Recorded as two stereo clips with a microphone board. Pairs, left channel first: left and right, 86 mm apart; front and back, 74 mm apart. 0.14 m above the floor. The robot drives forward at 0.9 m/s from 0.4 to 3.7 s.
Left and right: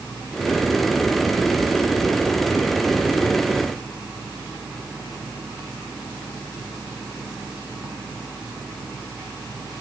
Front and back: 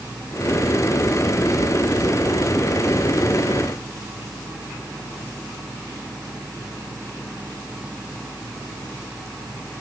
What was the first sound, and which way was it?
Only background noise.